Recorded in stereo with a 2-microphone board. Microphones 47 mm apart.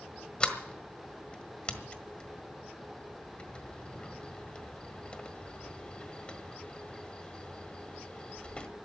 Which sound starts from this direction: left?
A sliding door, at 0.4 s.